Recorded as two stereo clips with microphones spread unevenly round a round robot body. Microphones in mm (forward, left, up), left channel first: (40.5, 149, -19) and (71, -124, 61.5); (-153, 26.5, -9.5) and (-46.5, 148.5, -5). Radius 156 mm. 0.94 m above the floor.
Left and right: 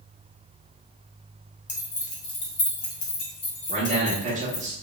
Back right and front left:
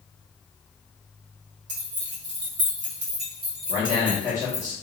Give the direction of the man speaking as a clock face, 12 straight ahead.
12 o'clock.